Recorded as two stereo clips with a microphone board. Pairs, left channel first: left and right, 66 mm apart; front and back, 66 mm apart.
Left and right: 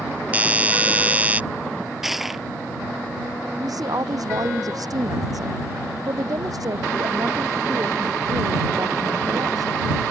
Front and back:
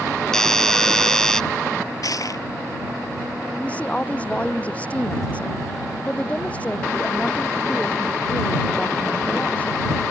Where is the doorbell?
70° right.